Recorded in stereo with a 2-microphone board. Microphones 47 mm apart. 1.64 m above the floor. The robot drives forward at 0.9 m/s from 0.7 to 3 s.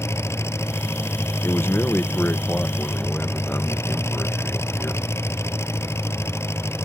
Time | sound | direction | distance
0.0 | an engine running | 75° left (ahead or behind) | ?
1.4 | a man speaking | 70° left (ahead or behind) | ?